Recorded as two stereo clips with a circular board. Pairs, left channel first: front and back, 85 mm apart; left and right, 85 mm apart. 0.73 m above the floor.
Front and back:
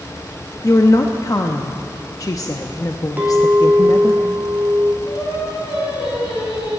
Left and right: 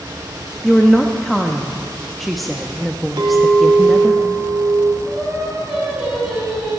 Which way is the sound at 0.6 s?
Straight ahead.